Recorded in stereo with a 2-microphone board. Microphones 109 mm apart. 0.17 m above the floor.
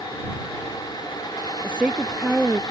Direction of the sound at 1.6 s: 10° right (ahead or behind).